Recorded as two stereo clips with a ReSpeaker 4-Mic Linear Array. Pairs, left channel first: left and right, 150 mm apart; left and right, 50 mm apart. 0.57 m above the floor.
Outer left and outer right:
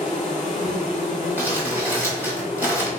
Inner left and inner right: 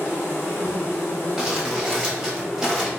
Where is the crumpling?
10° right (ahead or behind), 1.1 m.